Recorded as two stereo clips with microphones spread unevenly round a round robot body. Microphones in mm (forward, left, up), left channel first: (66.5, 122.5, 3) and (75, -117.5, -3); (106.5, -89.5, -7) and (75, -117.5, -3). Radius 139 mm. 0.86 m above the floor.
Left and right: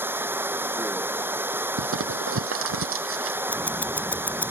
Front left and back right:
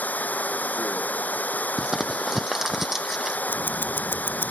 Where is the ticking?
10° left.